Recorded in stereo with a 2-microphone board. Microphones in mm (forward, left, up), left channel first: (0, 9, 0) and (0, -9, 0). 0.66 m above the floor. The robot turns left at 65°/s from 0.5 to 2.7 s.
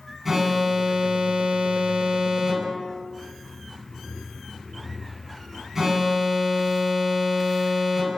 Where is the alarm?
15° right, 5 m; by 8.2 s 160° right, 5 m.